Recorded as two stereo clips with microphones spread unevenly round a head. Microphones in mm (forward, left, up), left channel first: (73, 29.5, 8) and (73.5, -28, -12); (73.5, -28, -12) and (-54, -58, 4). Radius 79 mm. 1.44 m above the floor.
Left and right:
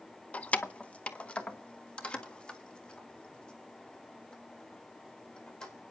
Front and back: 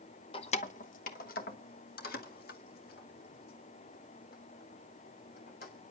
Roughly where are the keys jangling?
Ahead left.